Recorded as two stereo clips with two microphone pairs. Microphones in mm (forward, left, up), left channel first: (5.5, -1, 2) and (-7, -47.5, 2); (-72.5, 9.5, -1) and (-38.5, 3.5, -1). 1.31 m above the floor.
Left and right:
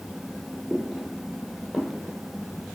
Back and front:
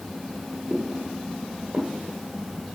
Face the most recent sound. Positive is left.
turn(degrees=-30)